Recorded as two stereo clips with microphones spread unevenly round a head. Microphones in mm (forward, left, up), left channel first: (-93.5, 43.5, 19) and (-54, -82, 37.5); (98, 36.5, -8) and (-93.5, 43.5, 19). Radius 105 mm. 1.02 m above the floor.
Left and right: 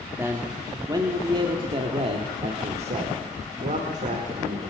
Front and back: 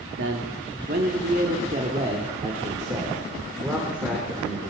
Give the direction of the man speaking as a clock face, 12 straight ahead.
5 o'clock.